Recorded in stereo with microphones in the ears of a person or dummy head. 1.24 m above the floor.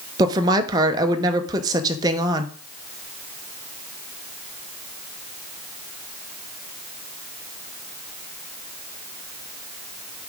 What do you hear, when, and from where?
0.2 s a woman speaking: 20° right (ahead or behind), 0.9 m